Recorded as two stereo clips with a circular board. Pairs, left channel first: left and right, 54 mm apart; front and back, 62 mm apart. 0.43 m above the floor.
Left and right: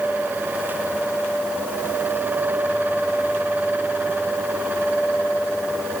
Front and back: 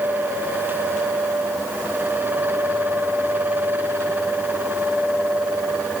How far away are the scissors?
No scissors in this recording.